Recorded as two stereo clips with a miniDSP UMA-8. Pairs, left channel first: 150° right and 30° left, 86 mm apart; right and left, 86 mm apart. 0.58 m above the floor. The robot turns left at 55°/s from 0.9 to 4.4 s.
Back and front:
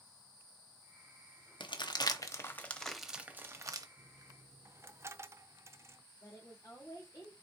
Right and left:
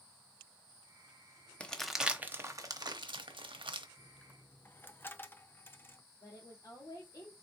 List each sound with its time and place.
1.6 s crumpling: 165° right, 0.8 m; by 3.9 s 70° left, 0.8 m
4.0 s a dropped coin: straight ahead, 0.5 m; by 6.0 s 25° right, 0.5 m
6.2 s a woman speaking: 115° right, 1.6 m